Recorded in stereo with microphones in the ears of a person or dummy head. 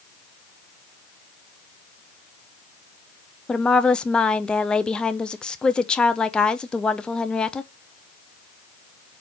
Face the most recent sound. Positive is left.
turn(degrees=5)  # may be behind; listen again after turning